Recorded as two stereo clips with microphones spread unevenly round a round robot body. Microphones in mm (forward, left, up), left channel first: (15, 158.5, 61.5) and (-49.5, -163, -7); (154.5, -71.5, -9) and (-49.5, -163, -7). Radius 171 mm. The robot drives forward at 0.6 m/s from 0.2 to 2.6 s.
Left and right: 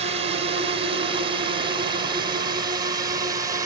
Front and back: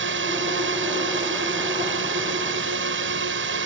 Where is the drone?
160° right; by 3.7 s 170° right.